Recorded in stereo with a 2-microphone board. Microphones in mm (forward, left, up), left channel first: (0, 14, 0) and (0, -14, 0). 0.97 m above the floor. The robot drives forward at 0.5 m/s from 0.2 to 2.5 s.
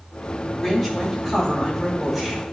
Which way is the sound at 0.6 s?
5° right (ahead or behind).